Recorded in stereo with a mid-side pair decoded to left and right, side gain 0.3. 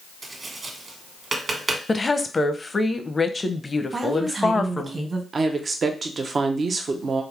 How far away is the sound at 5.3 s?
About 0.7 m.